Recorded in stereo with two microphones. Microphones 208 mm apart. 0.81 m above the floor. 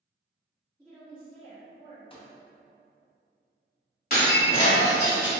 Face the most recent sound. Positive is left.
turn(degrees=45)  # may be behind; listen again after turning